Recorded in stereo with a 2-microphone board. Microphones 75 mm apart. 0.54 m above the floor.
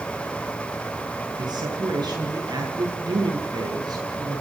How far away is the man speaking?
About 7 m.